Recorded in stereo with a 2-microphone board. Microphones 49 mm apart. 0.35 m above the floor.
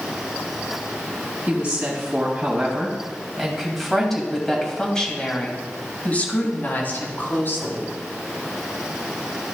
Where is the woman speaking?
30° right (ahead or behind), 2.5 m; by 7.9 s 50° left (ahead or behind), 3 m.